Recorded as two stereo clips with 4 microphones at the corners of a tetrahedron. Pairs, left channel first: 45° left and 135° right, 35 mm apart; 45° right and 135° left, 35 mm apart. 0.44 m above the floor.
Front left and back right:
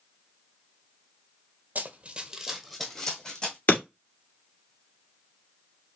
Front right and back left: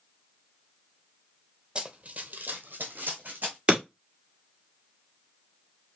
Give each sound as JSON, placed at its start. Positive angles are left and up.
{"t": 1.8, "sound": "running footsteps", "azimuth_deg": -160, "distance_m": 0.8}
{"t": 3.7, "sound": "breaking glass", "azimuth_deg": 75, "distance_m": 2.5}